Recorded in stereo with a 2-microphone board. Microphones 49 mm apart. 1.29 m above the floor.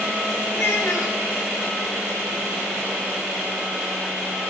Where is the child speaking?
75° left (ahead or behind), 1.4 m.